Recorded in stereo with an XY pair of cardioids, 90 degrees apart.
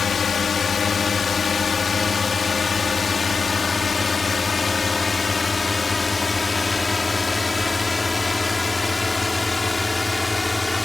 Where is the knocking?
No knocking in this recording.